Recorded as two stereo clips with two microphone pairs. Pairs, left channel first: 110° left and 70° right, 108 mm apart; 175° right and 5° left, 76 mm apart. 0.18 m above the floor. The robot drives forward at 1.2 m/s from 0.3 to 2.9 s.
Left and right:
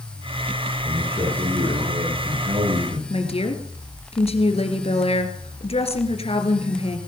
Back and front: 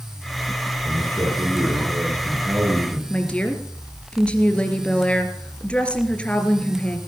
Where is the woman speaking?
110° left, 2.5 m.